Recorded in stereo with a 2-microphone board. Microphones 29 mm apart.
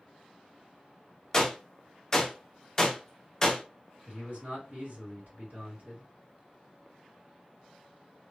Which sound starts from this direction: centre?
A gunshot, at 1.3 s.